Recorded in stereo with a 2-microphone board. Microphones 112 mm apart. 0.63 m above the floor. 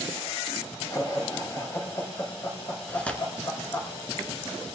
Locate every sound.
0.9 s laughter: 30° left (ahead or behind), 4 m
2.9 s tearing paper: 10° left (ahead or behind), 2 m